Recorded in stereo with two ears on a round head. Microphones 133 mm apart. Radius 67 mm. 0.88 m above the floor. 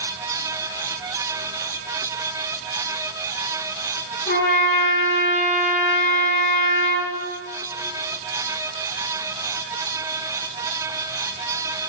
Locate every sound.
4.3 s a trumpet: 80° left, 2.5 m